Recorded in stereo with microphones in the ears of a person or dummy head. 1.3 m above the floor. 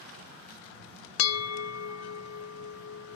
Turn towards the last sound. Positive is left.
turn(degrees=80)